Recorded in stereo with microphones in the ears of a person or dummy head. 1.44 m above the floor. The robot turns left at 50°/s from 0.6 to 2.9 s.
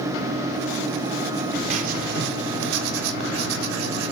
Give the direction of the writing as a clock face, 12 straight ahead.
2 o'clock.